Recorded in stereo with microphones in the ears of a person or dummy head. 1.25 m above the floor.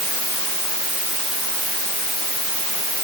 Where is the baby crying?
No baby crying in this recording.